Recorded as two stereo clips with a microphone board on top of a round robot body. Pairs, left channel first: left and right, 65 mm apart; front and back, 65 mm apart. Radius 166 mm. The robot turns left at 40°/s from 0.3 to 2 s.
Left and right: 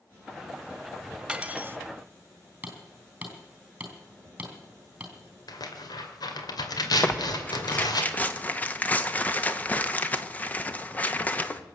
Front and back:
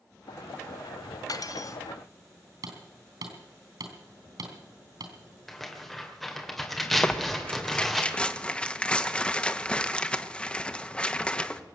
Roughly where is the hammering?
Behind.